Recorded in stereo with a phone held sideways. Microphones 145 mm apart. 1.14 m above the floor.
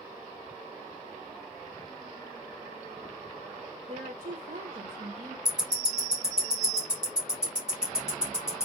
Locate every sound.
3.9 s a woman speaking: 60° right (ahead or behind), 1.2 m
5.5 s ticking: 5° right (ahead or behind), 1.4 m